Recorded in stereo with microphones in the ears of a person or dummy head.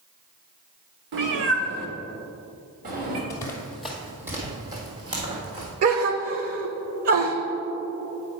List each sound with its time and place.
1.1 s a cat meowing: 60° right (ahead or behind), 1.0 m; by 3.2 s 40° right (ahead or behind), 1.8 m
3.3 s running footsteps: 20° left (ahead or behind), 1.2 m; by 5.7 s 30° right (ahead or behind), 3 m
5.8 s a gasp: 45° right (ahead or behind), 0.7 m